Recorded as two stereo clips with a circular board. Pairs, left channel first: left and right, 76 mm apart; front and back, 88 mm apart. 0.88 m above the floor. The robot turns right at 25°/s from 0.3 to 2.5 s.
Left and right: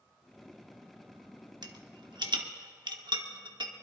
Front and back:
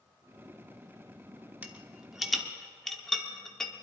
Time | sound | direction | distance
1.6 | a rattle | 110° right | 1.1 m